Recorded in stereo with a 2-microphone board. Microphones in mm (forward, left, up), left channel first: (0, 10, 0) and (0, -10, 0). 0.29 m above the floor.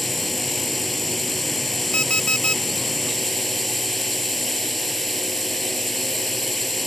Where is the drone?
10° left (ahead or behind).